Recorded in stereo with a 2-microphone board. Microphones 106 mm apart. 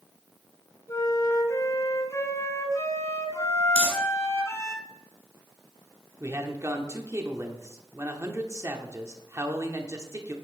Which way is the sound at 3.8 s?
75° left (ahead or behind).